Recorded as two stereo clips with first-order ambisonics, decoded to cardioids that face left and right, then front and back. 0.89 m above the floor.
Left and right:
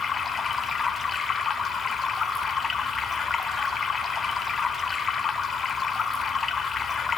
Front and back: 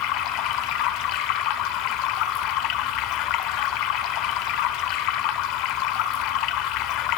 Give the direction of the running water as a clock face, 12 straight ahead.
11 o'clock.